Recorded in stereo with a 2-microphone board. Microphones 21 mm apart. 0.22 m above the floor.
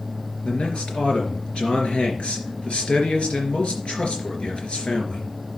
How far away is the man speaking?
About 3.5 m.